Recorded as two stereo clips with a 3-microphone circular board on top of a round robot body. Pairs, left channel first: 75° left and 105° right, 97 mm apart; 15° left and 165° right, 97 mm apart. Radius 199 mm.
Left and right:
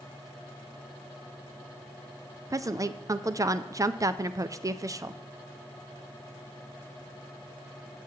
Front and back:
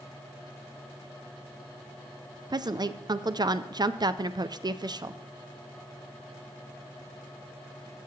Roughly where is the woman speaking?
Behind right.